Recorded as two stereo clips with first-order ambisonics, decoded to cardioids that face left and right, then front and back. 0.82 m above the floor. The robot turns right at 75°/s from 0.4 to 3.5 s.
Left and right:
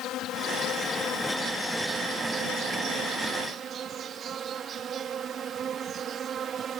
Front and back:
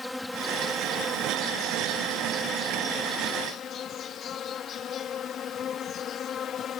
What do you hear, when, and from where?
0.0 s an insect: 85° left; by 6.8 s 45° right